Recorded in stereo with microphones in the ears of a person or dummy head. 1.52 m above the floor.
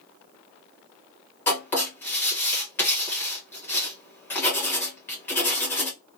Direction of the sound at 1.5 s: 15° left (ahead or behind).